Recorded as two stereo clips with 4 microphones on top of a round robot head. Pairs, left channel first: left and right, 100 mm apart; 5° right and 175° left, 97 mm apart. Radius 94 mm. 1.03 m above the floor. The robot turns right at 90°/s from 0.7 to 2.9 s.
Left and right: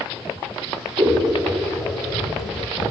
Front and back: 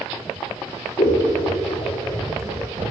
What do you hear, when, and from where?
1.0 s scissors: 40° right, 0.7 m; by 2.9 s 135° left, 0.7 m